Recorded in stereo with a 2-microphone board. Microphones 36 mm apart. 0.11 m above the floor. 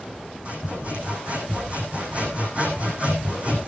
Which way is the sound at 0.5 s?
40° right (ahead or behind).